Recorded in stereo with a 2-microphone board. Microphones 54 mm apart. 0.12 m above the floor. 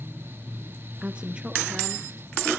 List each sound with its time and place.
1.0 s a woman speaking: 20° right (ahead or behind), 1.1 m; by 2.5 s 15° right (ahead or behind), 2.5 m